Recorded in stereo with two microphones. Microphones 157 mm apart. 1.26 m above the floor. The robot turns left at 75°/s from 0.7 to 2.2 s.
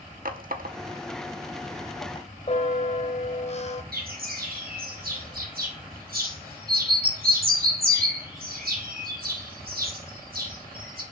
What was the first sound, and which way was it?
A running tap, 70° right (ahead or behind).